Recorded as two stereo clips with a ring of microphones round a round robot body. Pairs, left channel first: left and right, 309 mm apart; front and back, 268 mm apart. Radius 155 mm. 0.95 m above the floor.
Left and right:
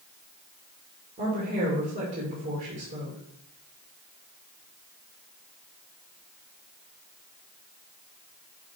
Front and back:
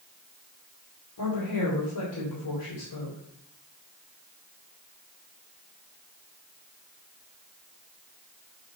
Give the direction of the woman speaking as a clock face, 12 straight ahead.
1 o'clock.